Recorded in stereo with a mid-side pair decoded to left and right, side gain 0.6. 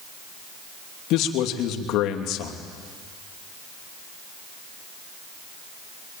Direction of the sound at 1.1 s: 65° left.